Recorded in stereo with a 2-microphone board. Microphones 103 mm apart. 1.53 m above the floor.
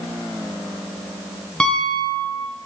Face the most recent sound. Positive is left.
turn(degrees=10)  # may be behind; listen again after turning